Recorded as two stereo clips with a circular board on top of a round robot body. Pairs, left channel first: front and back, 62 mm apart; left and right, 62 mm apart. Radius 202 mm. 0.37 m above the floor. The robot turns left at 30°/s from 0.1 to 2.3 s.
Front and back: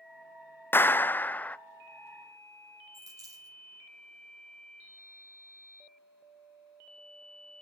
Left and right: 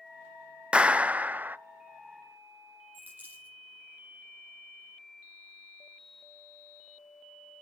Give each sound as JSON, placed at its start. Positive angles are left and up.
{"t": 0.7, "sound": "a clap", "azimuth_deg": -25, "distance_m": 0.6}
{"t": 2.9, "sound": "a dropped coin", "azimuth_deg": -150, "distance_m": 5.0}